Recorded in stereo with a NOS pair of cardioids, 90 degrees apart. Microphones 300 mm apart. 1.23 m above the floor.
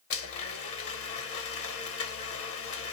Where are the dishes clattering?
No dishes clattering in this recording.